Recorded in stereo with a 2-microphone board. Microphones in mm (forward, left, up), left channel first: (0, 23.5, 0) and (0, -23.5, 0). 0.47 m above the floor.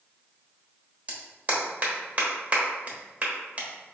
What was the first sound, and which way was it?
A clap, 35° right (ahead or behind).